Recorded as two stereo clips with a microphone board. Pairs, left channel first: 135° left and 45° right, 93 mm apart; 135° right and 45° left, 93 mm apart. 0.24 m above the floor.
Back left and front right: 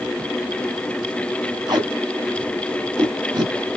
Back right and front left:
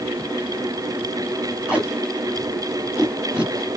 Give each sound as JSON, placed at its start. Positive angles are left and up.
{"t": 1.7, "sound": "tape being pulled", "azimuth_deg": -30, "distance_m": 2.0}